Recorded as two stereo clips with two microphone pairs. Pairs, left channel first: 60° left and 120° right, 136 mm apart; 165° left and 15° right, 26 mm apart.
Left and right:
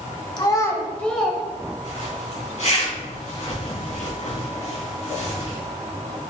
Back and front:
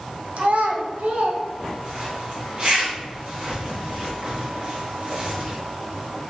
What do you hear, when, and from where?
0.4 s a child speaking: 5° left, 1.5 m; by 1.4 s 35° right, 1.4 m
1.8 s a zipper: 30° left, 3 m